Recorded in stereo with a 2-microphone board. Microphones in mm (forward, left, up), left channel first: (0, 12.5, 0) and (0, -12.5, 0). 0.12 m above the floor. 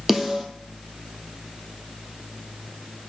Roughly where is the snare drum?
Centre.